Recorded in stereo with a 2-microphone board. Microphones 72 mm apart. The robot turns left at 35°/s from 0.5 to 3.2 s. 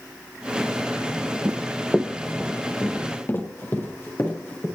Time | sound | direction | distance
1.4 | running footsteps | 25° right (ahead or behind) | 0.6 m